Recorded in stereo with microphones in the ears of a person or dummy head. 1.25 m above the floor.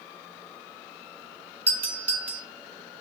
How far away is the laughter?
No laughter in this recording.